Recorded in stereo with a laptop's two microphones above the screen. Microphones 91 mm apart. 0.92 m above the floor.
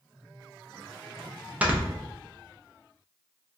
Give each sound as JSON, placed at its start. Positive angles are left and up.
{"t": 1.6, "sound": "snoring", "side_deg": -15, "distance_m": 0.7}